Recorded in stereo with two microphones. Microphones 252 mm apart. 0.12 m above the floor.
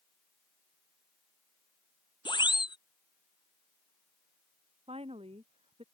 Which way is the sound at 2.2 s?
15° left (ahead or behind).